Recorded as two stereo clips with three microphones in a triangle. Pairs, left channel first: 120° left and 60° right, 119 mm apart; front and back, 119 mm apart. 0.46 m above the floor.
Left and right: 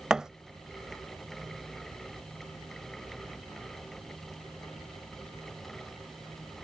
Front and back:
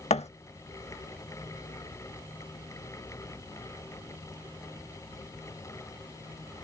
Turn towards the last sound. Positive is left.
turn(degrees=25)